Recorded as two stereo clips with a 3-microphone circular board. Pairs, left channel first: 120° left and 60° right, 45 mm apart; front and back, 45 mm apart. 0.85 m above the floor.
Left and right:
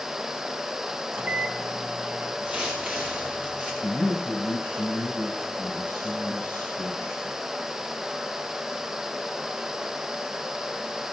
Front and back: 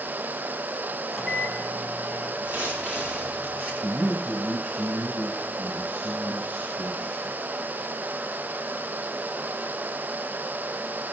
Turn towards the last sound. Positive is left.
turn(degrees=145)